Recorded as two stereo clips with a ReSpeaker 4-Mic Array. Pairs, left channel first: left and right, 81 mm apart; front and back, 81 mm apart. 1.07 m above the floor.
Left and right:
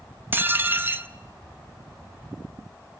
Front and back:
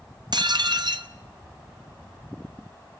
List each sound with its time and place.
0.3 s dishes clattering: 155° right, 0.8 m